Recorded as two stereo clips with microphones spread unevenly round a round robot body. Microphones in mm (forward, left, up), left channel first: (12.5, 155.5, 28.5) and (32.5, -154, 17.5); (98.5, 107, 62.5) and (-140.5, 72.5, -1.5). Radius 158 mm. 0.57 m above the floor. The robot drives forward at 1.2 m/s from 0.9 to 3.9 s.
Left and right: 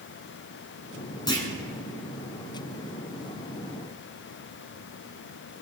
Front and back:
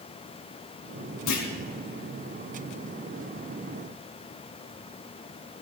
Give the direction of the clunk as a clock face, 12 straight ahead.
11 o'clock.